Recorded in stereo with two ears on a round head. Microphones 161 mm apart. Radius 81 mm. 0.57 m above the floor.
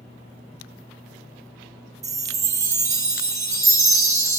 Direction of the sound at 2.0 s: 20° right (ahead or behind).